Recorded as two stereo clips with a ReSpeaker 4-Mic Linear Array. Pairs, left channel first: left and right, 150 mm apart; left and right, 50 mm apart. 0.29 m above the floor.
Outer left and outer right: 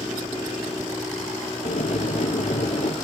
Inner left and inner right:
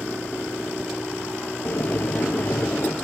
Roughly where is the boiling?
Left.